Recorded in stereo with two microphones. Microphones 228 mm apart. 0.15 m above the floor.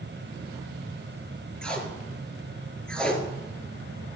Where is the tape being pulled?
5° left (ahead or behind), 1.7 m.